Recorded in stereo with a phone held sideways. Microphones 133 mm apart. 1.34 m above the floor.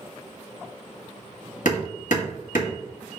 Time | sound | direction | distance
1.6 | hammering | 70° left (ahead or behind) | 1.8 m